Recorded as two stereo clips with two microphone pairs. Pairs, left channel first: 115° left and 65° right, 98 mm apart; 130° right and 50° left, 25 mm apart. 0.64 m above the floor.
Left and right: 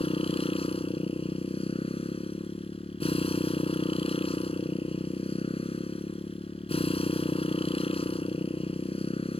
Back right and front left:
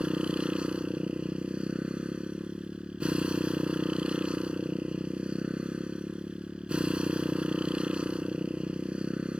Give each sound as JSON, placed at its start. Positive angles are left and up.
{"t": 0.0, "sound": "a motorcycle", "azimuth_deg": 95}